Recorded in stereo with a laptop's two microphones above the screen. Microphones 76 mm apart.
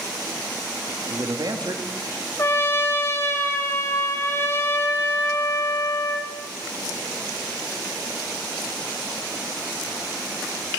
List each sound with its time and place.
1.1 s a man speaking: 60° right (ahead or behind), 2 m
2.4 s a trumpet: 35° left (ahead or behind), 1.2 m